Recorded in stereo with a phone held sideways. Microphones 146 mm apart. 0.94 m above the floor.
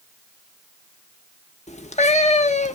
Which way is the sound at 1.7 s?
50° left (ahead or behind).